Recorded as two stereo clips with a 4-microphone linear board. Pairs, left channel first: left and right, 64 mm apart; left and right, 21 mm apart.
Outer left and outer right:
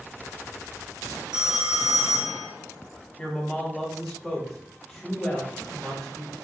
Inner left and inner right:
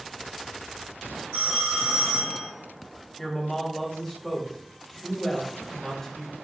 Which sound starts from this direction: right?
A phone ringing, at 1.3 s.